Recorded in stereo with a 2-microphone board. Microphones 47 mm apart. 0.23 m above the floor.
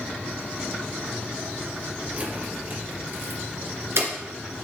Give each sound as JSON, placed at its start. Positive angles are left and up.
{"t": 2.1, "sound": "keys jangling", "side_deg": -35, "distance_m": 2.5}